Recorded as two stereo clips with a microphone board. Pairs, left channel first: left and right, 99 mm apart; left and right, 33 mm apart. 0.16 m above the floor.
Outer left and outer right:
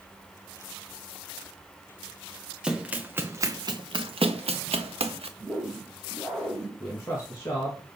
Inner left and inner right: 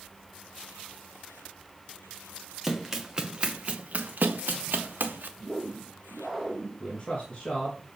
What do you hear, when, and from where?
2.6 s running footsteps: 10° right (ahead or behind), 1.6 m; by 5.3 s 70° right (ahead or behind), 1.5 m
5.4 s a whoosh: 5° left (ahead or behind), 5 m
6.8 s a man speaking: 30° left (ahead or behind), 2.0 m